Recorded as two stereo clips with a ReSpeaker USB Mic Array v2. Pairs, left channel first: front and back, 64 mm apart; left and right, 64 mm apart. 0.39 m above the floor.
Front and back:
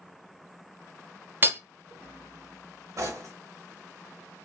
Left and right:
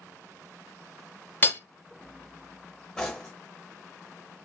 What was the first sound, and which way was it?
Hammering, 135° left.